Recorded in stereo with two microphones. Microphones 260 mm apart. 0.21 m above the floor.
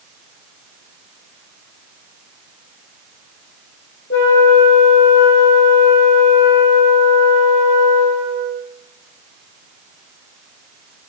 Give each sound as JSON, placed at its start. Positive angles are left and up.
{"t": 4.1, "sound": "a flute", "side_deg": 50, "distance_m": 5.5}